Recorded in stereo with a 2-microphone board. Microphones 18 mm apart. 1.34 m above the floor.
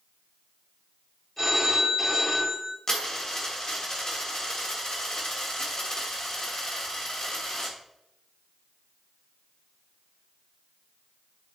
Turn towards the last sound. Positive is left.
turn(degrees=45)  # may be behind; listen again after turning